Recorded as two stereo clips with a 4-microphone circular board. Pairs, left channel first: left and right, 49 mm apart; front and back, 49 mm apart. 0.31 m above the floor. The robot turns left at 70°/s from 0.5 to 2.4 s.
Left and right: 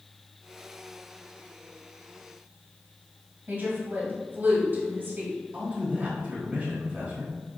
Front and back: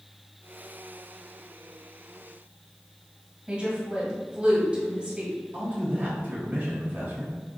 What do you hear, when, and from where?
3.5 s a woman speaking: 120° right, 1.6 m
5.5 s a man speaking: 140° right, 1.2 m